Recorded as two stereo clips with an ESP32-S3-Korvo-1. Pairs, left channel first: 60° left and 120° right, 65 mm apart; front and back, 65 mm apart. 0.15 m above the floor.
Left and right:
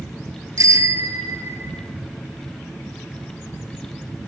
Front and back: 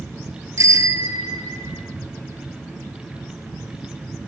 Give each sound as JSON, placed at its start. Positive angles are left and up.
{"t": 0.6, "sound": "a bicycle bell", "azimuth_deg": -150, "distance_m": 2.0}